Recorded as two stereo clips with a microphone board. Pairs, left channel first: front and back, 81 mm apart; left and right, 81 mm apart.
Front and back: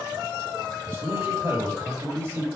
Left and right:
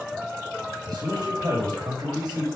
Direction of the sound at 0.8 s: 130° right.